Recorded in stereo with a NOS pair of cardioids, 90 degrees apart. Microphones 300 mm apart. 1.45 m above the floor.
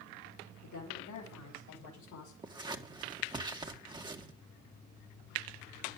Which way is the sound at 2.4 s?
15° right.